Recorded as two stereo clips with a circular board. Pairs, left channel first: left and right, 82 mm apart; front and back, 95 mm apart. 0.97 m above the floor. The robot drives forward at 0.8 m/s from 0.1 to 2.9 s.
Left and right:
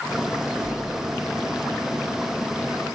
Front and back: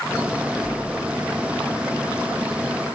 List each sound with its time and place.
0.6 s a splash: 75° right, 2.5 m; by 1.6 s 95° right, 2.5 m